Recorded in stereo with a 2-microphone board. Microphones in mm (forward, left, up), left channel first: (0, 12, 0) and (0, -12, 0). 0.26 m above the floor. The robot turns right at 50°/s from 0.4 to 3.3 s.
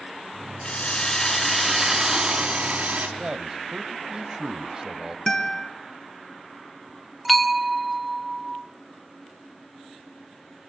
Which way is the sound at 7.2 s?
5° left (ahead or behind).